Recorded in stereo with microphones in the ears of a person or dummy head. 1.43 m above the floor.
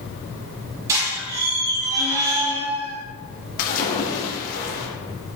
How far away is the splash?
About 1.8 m.